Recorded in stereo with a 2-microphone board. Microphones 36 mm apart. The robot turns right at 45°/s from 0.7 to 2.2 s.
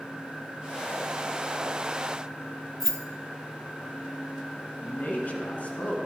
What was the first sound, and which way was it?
Keys jangling, 15° left (ahead or behind).